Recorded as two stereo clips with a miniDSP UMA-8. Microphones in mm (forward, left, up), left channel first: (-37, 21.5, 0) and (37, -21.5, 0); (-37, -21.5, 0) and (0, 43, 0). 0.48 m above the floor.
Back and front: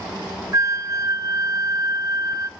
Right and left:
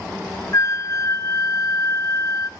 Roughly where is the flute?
Right.